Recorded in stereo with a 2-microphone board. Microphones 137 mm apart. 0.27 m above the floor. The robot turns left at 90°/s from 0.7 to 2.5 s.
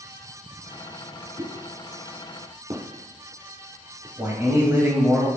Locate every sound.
1.4 s a pop: 30° right (ahead or behind), 1.3 m; by 4.1 s 50° right (ahead or behind), 1.3 m
4.2 s a man speaking: 20° right (ahead or behind), 1.2 m